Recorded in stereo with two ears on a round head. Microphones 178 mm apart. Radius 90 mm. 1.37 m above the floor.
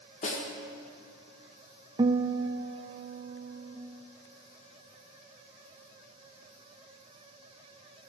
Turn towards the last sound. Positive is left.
turn(degrees=-20)  # may be behind; listen again after turning